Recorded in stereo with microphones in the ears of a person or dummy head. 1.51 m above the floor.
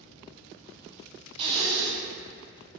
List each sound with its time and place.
1.4 s breathing: 25° right (ahead or behind), 0.5 m